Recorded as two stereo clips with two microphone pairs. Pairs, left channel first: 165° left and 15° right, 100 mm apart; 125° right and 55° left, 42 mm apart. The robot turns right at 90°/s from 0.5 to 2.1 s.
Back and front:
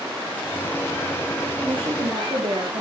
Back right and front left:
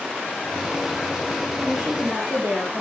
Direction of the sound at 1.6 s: 40° right.